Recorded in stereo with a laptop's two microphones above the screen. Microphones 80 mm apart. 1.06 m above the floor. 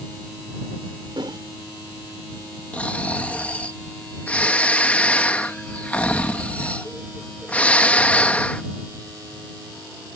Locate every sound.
1.2 s a whoosh: 70° right (ahead or behind)
2.7 s snoring: 15° left (ahead or behind)